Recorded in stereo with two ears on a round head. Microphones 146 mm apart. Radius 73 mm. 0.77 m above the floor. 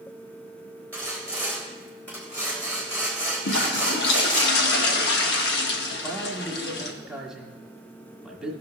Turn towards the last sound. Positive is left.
turn(degrees=-5)  # may be behind; listen again after turning